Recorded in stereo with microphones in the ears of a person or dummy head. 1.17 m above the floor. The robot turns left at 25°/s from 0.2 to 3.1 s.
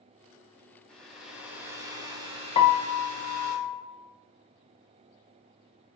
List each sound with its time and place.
0.9 s a hair dryer: 5° left, 0.9 m; by 3.5 s 50° right, 0.9 m
2.5 s a piano: 25° left (ahead or behind), 0.5 m; by 3.8 s 15° left (ahead or behind), 0.5 m